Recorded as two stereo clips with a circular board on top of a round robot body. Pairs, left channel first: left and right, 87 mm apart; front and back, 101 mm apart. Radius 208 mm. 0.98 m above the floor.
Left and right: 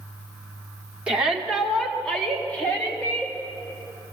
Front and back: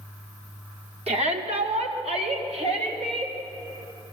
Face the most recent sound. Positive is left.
turn(degrees=155)